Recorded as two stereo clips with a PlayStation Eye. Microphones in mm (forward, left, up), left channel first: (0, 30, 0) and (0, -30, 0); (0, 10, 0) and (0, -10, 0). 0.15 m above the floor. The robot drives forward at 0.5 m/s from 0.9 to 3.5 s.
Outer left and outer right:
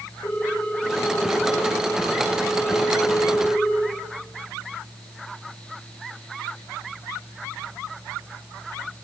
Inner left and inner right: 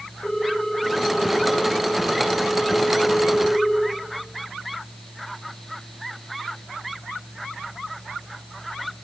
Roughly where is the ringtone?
Left.